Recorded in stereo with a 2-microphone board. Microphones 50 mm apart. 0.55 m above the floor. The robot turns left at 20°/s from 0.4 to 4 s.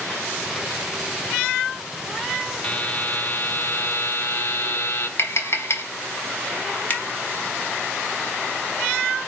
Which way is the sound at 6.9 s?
30° left (ahead or behind).